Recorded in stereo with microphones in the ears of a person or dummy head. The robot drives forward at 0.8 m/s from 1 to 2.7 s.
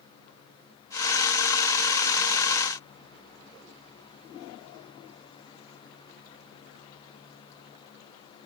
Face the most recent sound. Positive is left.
No sound to turn to.